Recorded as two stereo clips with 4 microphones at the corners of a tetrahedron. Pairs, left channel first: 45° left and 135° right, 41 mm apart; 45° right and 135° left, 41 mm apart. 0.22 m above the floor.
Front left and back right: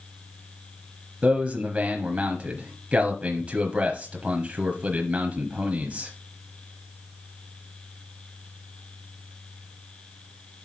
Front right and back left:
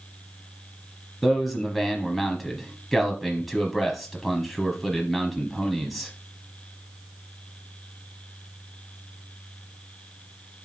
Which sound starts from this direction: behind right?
A man speaking, at 1.2 s.